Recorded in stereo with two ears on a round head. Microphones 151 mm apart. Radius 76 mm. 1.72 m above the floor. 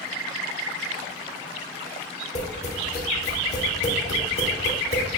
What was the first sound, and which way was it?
Tapping, 40° left (ahead or behind).